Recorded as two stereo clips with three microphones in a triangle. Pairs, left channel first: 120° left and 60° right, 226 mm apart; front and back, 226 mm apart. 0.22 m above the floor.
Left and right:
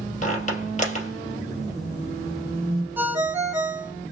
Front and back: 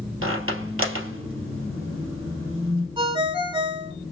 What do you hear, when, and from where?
0.2 s a squeak: 175° left, 2.5 m
3.0 s a ringtone: 135° right, 0.9 m